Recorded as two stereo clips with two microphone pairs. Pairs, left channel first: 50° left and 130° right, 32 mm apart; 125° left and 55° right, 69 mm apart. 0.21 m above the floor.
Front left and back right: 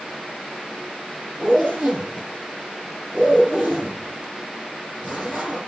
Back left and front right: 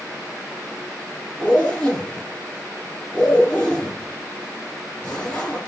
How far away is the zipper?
About 6.5 m.